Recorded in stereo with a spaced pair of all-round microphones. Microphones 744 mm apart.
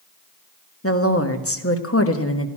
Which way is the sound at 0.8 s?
20° left (ahead or behind).